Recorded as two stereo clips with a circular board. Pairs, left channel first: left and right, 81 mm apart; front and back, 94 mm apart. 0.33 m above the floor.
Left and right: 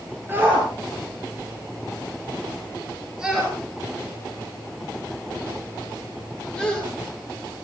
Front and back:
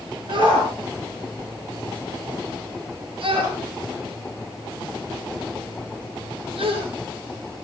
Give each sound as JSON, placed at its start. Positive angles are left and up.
{"t": 0.3, "sound": "a shout", "azimuth_deg": -155, "distance_m": 5.5}